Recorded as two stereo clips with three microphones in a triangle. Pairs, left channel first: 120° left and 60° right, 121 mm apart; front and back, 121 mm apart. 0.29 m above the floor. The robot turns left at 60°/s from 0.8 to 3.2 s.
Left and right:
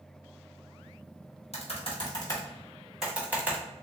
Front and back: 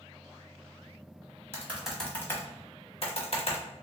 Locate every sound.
1.5 s typing on a keyboard: 115° left, 1.3 m; by 3.6 s 15° left, 1.3 m